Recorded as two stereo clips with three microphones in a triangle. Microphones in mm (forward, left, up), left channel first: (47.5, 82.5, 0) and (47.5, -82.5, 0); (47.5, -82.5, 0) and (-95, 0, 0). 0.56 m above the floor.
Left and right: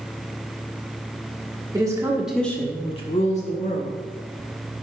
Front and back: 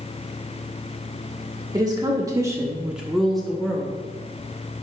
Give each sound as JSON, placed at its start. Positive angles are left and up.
{"t": 1.7, "sound": "a woman speaking", "azimuth_deg": -150, "distance_m": 1.3}